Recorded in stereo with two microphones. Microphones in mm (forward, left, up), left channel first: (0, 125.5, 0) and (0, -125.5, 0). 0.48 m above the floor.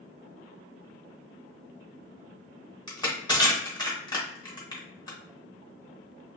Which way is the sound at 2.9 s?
15° left (ahead or behind).